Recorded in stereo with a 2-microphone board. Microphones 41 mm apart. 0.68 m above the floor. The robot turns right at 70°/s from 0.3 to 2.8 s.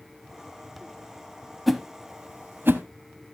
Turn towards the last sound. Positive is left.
turn(degrees=-70)  # may be behind; listen again after turning